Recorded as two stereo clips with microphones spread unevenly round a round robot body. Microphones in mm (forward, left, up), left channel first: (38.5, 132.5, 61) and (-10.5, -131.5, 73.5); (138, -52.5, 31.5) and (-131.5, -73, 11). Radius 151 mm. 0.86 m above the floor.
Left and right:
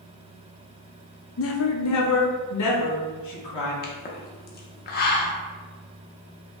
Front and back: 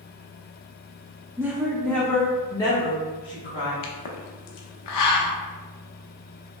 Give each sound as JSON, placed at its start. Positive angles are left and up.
{"t": 1.4, "sound": "a woman speaking", "azimuth_deg": 105, "distance_m": 0.6}
{"t": 3.8, "sound": "a pop", "azimuth_deg": 25, "distance_m": 0.6}